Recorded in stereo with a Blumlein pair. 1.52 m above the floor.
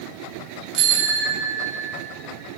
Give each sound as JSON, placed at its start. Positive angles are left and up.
{"t": 0.7, "sound": "a bicycle bell", "azimuth_deg": -45, "distance_m": 3.0}